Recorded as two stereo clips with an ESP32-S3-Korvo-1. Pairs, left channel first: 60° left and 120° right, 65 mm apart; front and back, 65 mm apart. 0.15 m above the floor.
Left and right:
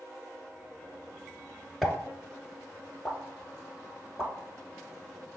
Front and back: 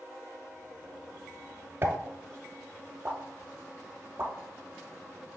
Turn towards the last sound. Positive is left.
turn(degrees=145)